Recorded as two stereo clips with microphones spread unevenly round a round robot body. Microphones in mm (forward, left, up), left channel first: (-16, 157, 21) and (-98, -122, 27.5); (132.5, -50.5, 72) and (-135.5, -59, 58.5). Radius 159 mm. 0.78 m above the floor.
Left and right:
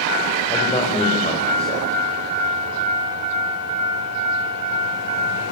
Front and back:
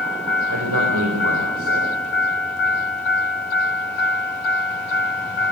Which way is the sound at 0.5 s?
145° left.